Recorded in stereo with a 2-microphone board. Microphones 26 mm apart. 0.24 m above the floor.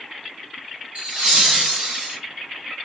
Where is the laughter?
45° right (ahead or behind), 2.5 m; by 2.2 s 55° right (ahead or behind), 2.5 m.